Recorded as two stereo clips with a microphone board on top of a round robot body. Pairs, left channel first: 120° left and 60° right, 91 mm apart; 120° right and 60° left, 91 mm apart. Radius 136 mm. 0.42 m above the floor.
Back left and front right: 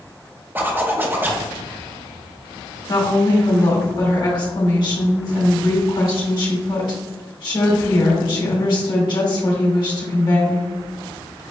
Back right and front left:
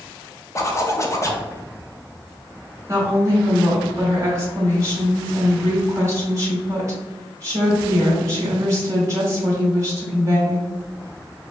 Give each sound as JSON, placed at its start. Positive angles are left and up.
{"t": 0.6, "sound": "a zipper", "azimuth_deg": -110, "distance_m": 0.8}
{"t": 2.9, "sound": "a woman speaking", "azimuth_deg": 110, "distance_m": 1.9}